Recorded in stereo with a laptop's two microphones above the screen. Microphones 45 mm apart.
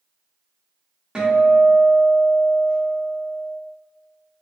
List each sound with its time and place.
1.1 s a guitar: 15° right (ahead or behind), 0.9 m